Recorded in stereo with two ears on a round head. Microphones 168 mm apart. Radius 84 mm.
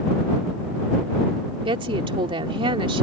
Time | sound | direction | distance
1.6 | a woman speaking | 30° right (ahead or behind) | ?